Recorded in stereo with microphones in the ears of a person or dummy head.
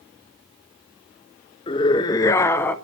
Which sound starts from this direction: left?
A scream, at 1.7 s.